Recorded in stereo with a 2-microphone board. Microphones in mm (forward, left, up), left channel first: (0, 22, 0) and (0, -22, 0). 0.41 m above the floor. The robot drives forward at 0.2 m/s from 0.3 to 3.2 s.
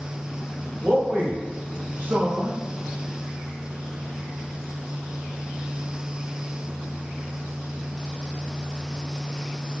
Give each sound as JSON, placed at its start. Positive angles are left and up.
{"t": 0.8, "sound": "a man speaking", "side_deg": -40, "distance_m": 1.0}